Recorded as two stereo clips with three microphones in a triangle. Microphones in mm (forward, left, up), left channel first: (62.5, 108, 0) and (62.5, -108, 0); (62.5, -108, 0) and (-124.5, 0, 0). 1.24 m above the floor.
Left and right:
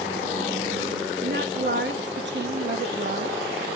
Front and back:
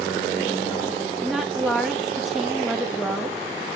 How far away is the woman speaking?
About 2 m.